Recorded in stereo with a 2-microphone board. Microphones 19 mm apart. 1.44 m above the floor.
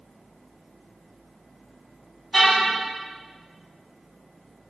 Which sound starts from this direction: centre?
A car horn, at 2.3 s.